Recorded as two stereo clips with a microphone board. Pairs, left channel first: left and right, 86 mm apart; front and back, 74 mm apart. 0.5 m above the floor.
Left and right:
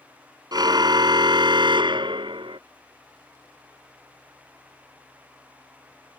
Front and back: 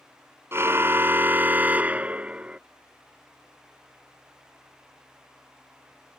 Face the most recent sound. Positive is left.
turn(degrees=-105)